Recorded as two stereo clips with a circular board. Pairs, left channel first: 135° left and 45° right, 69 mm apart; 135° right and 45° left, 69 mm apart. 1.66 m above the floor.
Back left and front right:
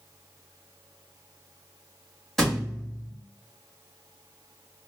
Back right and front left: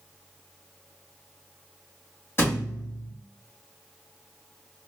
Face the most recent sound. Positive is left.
turn(degrees=-140)